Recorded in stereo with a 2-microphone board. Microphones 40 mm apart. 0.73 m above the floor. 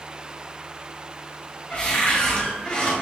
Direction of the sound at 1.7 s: 35° left (ahead or behind).